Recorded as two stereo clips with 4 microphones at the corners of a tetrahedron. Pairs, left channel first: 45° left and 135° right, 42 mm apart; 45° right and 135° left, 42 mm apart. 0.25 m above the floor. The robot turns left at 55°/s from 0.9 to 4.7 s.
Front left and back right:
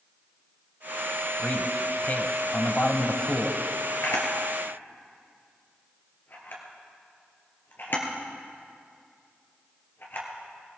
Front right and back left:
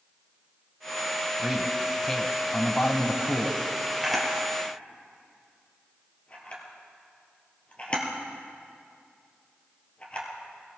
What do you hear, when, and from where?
1.4 s a man speaking: 75° left, 1.2 m; by 3.6 s 45° right, 1.2 m
4.0 s a camera shutter: 50° left, 2.5 m; by 10.3 s 15° left, 2.5 m